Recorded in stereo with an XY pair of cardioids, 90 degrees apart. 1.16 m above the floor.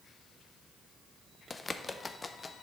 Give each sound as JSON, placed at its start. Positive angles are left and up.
{"t": 1.5, "sound": "a bird", "azimuth_deg": 30, "distance_m": 0.6}